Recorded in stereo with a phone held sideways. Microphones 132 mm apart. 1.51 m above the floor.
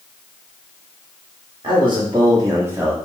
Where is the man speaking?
40° right (ahead or behind), 1.6 m; by 2.9 s 10° right (ahead or behind), 1.0 m.